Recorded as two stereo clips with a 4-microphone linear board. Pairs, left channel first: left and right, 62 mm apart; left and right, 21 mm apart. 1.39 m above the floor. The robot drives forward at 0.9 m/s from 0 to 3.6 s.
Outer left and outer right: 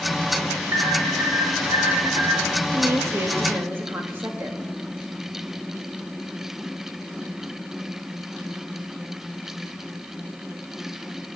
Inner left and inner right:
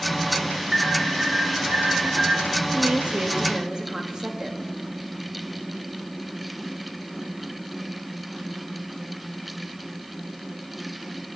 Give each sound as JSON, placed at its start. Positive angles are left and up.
{"t": 0.7, "sound": "an alarm", "side_deg": -75, "distance_m": 4.0}
{"t": 2.7, "sound": "a woman speaking", "side_deg": -60, "distance_m": 1.4}